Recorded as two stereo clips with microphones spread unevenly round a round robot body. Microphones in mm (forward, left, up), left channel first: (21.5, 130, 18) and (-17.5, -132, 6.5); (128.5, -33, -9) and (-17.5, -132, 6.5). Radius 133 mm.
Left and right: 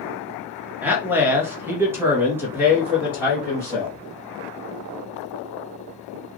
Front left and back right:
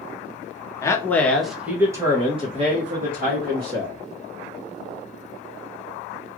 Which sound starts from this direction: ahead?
A man speaking, at 0.8 s.